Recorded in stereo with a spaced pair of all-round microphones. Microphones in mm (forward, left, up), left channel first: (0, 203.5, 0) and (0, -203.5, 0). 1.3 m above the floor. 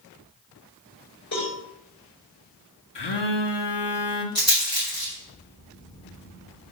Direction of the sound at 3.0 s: 75° left (ahead or behind).